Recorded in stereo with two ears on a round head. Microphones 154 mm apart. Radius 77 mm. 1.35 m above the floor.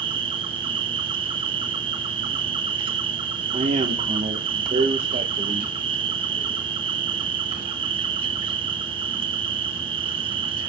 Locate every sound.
0.0 s an insect: 30° right (ahead or behind), 1.1 m
3.5 s a man speaking: 35° right (ahead or behind), 1.2 m